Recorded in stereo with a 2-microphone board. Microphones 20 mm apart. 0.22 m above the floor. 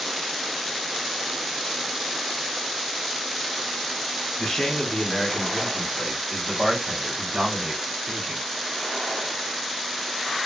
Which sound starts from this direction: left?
A man speaking, at 4.4 s.